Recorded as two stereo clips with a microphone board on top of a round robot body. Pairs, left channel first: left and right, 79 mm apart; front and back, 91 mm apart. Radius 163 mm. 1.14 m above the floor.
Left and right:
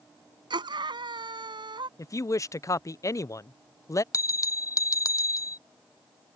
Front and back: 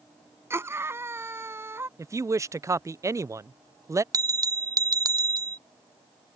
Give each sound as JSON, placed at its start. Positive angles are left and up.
{"t": 0.5, "sound": "a scream", "azimuth_deg": -115}
{"t": 2.0, "sound": "a woman speaking", "azimuth_deg": 130}
{"t": 4.1, "sound": "a bell", "azimuth_deg": 135}